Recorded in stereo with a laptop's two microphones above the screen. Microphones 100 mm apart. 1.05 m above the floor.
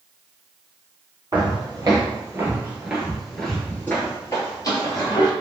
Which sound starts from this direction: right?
Footsteps, at 1.3 s.